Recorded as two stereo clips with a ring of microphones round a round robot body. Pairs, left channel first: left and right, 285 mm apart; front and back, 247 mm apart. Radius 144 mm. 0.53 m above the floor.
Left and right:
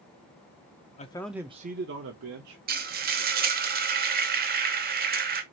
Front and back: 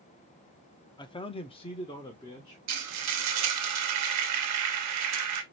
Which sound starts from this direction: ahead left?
A man speaking, at 1.0 s.